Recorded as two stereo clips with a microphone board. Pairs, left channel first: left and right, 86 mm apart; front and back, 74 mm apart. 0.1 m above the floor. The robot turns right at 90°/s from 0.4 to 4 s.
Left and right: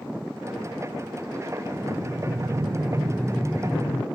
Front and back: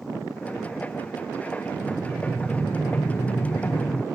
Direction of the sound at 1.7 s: 165° right.